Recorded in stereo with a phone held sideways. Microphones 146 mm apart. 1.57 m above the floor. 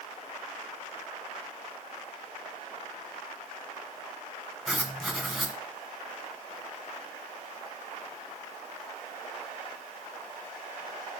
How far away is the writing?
About 1.9 m.